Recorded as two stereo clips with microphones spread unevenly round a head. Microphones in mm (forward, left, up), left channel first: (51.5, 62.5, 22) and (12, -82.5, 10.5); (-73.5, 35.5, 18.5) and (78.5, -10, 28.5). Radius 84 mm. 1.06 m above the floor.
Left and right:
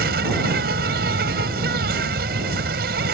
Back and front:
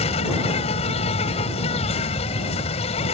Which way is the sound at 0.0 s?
140° right.